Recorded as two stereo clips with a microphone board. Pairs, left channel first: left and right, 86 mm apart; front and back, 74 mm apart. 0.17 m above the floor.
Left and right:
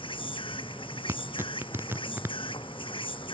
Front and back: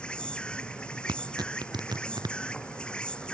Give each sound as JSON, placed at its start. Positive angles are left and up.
{"t": 0.0, "sound": "an insect", "azimuth_deg": 80}
{"t": 1.1, "sound": "tearing paper", "azimuth_deg": -155}